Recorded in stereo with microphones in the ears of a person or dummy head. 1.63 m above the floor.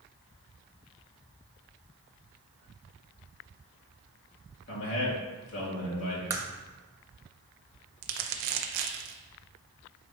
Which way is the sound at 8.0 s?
60° right (ahead or behind).